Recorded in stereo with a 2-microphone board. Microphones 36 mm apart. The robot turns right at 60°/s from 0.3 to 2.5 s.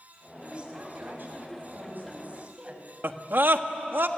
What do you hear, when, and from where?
0.4 s a woman speaking: 155° right, 5.5 m; by 2.8 s 30° right, 5.5 m
3.0 s a scream: 75° right (ahead or behind), 1.5 m